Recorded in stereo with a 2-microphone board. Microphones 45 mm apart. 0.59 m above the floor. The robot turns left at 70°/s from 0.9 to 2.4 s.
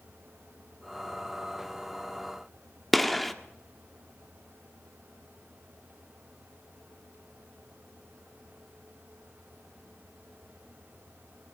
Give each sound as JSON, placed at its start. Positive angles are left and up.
{"t": 2.9, "sound": "a gunshot", "side_deg": 5, "distance_m": 1.4}